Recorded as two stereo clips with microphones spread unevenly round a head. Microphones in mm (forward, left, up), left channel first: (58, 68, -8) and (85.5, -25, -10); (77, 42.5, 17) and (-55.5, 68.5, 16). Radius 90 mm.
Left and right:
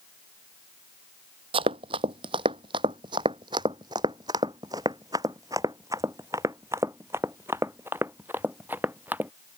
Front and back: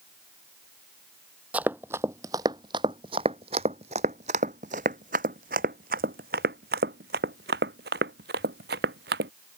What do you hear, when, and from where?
1.5 s running footsteps: 110° right; by 9.3 s 155° right